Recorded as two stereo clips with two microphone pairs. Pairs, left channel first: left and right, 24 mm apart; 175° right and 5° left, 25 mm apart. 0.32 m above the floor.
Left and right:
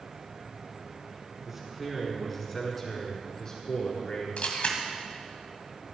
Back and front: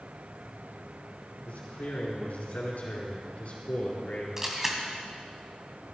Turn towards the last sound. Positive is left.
turn(degrees=80)